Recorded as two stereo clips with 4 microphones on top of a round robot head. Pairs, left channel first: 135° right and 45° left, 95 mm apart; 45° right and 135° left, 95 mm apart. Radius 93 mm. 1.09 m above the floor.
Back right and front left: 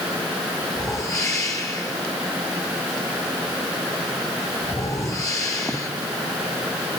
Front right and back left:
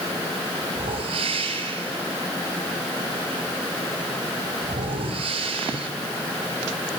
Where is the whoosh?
165° left, 7 m.